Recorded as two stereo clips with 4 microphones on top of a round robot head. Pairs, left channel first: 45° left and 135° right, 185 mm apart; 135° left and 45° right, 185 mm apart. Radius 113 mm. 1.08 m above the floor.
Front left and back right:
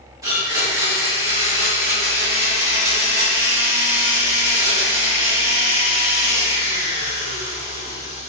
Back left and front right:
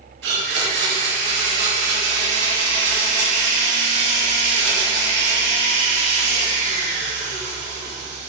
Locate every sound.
0.2 s a blender: 60° right, 2.5 m